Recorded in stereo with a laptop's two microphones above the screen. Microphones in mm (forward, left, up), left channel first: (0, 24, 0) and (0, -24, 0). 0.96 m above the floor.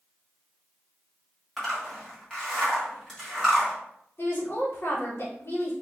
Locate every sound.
1.6 s a zipper: 5° left (ahead or behind), 1.5 m
4.2 s a woman speaking: 50° left (ahead or behind), 1.2 m